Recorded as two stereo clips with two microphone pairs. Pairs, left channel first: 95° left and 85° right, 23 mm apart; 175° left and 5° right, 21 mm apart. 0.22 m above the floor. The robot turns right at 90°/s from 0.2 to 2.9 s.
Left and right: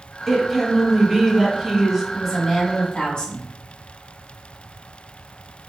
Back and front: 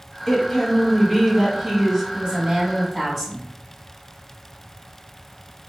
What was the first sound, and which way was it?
A woman speaking, 165° right.